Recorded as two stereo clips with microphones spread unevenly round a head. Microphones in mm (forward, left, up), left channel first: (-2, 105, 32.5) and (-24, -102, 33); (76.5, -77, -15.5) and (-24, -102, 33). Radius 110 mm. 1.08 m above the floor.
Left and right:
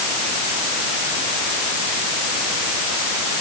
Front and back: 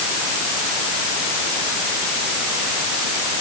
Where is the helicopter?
I don't hear a helicopter.